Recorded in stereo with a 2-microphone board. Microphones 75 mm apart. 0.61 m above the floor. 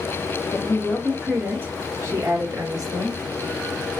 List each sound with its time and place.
0.5 s a woman speaking: 5° left (ahead or behind), 1.1 m; by 3.2 s 60° right (ahead or behind), 1.6 m